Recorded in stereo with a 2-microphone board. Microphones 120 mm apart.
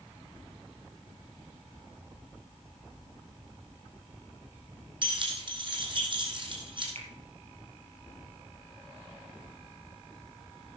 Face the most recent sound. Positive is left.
turn(degrees=-60)  # may be behind; listen again after turning